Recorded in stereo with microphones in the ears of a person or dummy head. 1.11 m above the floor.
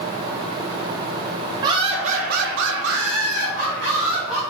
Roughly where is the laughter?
Right.